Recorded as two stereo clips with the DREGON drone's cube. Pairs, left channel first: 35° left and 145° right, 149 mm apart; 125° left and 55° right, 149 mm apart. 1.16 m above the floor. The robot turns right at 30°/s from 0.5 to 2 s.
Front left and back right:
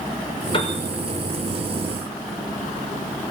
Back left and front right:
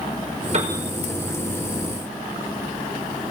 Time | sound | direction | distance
0.5 | a piano | 20° right | 5 m